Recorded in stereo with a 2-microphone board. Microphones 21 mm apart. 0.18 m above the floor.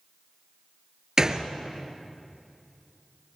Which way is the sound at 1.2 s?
30° right (ahead or behind).